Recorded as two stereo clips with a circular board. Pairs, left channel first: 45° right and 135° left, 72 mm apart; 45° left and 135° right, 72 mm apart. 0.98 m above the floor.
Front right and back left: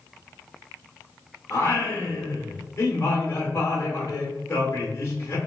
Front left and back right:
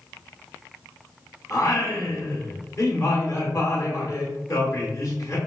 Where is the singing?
5° left, 1.0 m.